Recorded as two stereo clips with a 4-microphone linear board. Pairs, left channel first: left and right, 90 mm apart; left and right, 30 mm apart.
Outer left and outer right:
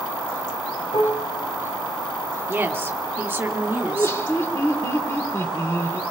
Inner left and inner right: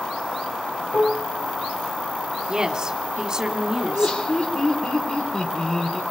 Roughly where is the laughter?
Left.